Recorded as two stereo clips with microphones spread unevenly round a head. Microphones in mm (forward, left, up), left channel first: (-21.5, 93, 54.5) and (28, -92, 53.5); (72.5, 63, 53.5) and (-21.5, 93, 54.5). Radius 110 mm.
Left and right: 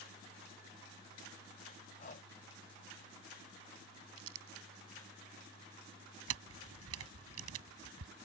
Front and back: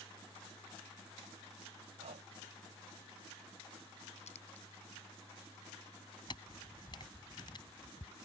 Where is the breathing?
160° left.